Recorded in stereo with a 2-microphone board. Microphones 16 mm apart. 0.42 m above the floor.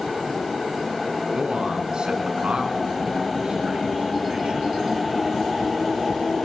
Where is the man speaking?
65° right (ahead or behind), 3.5 m.